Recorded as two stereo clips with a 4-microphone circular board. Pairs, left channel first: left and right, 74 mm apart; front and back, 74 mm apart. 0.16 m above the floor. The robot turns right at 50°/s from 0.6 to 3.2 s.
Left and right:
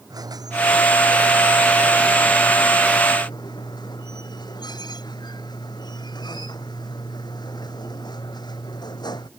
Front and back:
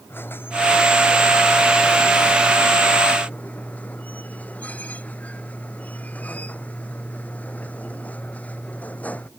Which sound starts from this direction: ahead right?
A squeak, at 0.1 s.